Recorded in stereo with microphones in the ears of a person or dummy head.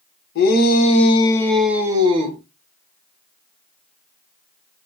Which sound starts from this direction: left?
A shout, at 0.3 s.